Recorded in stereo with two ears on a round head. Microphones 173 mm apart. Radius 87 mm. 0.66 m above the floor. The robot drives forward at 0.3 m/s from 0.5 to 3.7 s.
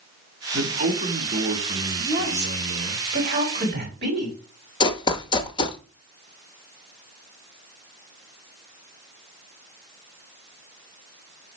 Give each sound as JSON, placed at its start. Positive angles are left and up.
{"t": 0.5, "sound": "a man speaking", "side_deg": -40, "distance_m": 2.0}
{"t": 2.0, "sound": "a woman speaking", "side_deg": -60, "distance_m": 3.5}
{"t": 4.8, "sound": "running footsteps", "side_deg": 25, "distance_m": 0.8}